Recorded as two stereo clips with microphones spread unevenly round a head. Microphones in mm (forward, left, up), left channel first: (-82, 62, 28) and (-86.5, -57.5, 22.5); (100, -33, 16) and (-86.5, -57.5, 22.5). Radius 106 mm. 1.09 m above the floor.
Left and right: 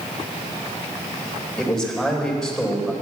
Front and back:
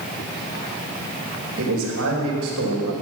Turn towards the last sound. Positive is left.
turn(degrees=175)